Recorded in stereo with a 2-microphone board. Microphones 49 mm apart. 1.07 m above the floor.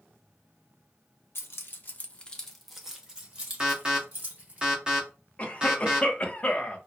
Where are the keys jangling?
65° left (ahead or behind), 0.6 m; by 4.6 s 40° right (ahead or behind), 1.4 m.